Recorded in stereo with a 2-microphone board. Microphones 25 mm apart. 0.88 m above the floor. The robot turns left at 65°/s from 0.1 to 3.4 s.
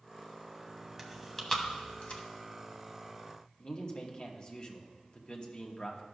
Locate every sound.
1.0 s chewing: 5° right (ahead or behind), 1.1 m; by 2.2 s 55° left (ahead or behind), 1.1 m
3.6 s a man speaking: 35° left (ahead or behind), 1.2 m